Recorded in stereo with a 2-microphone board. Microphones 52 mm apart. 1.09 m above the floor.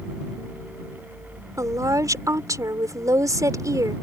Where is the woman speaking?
80° right.